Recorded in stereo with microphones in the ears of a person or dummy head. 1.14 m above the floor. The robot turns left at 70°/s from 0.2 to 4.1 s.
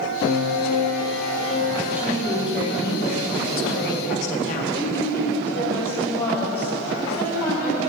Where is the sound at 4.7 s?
10° left (ahead or behind), 4.5 m.